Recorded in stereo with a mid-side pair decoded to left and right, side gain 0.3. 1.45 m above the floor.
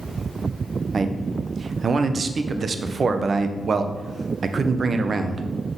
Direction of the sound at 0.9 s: 60° right.